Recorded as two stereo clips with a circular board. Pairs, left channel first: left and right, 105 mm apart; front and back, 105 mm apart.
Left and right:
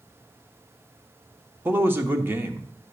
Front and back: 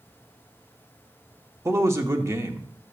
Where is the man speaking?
140° right, 0.8 m.